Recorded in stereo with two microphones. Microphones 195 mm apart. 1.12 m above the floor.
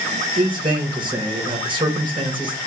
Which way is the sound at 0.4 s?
25° right (ahead or behind).